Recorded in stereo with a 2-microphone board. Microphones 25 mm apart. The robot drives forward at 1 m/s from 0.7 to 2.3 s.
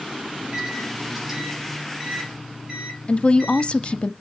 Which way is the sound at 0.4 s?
20° right (ahead or behind).